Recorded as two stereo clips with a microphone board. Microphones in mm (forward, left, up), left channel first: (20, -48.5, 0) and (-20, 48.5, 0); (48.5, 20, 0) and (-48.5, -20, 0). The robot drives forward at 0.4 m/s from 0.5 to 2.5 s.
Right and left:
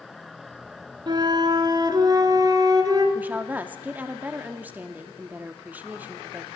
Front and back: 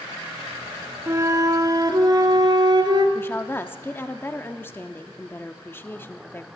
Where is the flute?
145° left, 0.8 m; by 3.0 s 160° left, 1.3 m.